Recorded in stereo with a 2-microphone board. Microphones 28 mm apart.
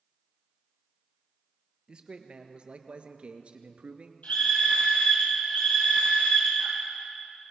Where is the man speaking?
35° right (ahead or behind), 2.5 m; by 4.1 s 50° right (ahead or behind), 1.7 m.